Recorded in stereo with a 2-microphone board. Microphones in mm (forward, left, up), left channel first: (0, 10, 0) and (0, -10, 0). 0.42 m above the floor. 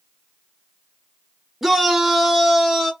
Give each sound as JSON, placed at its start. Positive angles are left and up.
{"t": 1.6, "sound": "a shout", "side_deg": -20, "distance_m": 0.8}